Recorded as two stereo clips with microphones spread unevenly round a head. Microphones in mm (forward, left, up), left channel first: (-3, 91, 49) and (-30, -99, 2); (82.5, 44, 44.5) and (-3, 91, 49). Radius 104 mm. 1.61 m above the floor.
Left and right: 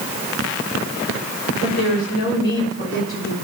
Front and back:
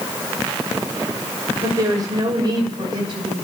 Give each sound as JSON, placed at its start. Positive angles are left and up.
{"t": 1.6, "sound": "a woman speaking", "azimuth_deg": 100, "distance_m": 6.5}